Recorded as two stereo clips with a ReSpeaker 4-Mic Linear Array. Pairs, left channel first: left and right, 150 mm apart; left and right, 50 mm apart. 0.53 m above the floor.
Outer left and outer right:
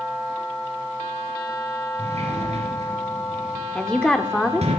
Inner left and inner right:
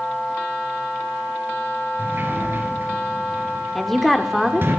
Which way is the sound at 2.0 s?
45° right (ahead or behind).